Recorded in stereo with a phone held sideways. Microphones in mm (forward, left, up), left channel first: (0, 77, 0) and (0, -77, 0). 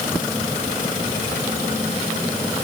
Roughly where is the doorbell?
I don't hear a doorbell.